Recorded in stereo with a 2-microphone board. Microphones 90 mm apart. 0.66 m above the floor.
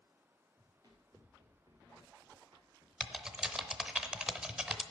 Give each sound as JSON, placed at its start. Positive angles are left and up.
{"t": 0.6, "sound": "running footsteps", "side_deg": -40, "distance_m": 3.5}
{"t": 3.0, "sound": "typing on a keyboard", "side_deg": -10, "distance_m": 0.7}